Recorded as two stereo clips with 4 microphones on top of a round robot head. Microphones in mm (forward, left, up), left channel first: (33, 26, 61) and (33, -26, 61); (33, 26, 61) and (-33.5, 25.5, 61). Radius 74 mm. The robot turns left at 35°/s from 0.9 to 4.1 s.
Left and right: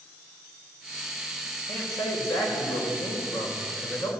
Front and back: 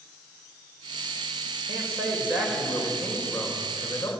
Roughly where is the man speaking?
Behind left.